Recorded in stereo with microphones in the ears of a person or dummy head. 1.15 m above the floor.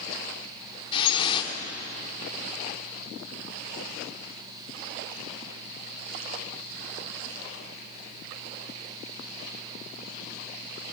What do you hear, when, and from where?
0.9 s dripping: 30° left (ahead or behind), 2 m